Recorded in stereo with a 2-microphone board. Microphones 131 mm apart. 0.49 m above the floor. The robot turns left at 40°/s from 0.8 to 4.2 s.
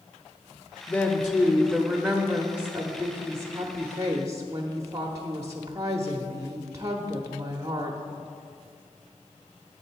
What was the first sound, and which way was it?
A woman speaking, 15° left (ahead or behind).